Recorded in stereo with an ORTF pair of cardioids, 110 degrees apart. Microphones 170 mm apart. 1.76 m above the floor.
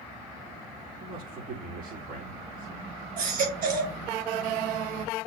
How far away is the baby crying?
About 4 m.